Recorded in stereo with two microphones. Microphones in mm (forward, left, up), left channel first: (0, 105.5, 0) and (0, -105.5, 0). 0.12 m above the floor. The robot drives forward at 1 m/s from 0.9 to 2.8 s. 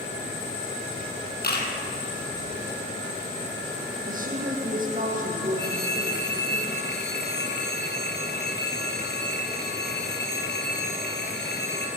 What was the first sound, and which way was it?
A camera shutter, 50° left (ahead or behind).